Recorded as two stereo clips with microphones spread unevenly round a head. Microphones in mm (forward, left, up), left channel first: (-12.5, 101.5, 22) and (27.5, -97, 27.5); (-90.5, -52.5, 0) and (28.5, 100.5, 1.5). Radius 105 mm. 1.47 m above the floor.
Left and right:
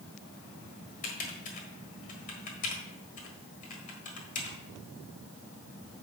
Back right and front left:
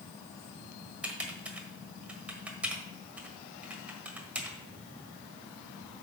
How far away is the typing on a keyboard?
About 1.4 m.